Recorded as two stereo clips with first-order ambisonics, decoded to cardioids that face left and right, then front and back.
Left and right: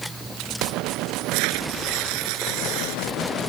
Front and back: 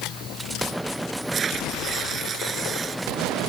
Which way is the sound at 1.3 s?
110° right.